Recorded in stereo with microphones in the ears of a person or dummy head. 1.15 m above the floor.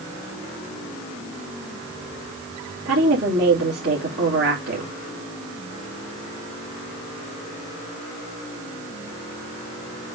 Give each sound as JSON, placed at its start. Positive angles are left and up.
{"t": 2.9, "sound": "a woman speaking", "side_deg": -70, "distance_m": 2.5}